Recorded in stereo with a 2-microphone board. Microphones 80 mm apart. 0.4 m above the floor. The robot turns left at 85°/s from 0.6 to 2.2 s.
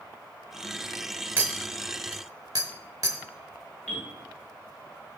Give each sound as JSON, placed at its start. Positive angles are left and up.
{"t": 1.4, "sound": "a clink", "side_deg": -25, "distance_m": 0.8}
{"t": 3.9, "sound": "a bell", "side_deg": 15, "distance_m": 2.0}